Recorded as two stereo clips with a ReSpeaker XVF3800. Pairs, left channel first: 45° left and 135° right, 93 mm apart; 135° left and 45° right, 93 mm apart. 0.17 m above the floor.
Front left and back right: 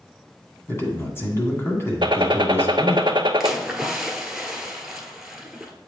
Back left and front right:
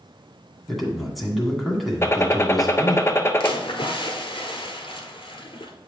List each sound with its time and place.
0.7 s a man speaking: 45° left, 1.7 m
2.0 s a gunshot: 165° right, 0.5 m
3.4 s a splash: 140° left, 1.2 m